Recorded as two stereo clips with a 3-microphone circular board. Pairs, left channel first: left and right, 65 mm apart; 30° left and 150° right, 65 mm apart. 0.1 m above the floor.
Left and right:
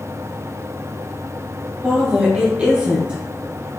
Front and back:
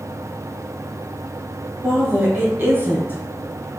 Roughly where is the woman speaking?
Behind right.